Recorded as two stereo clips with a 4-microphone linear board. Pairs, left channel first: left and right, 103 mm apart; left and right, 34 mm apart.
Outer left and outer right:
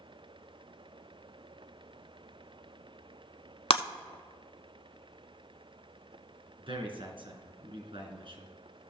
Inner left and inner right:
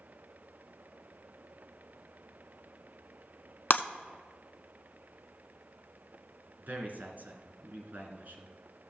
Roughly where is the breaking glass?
Left.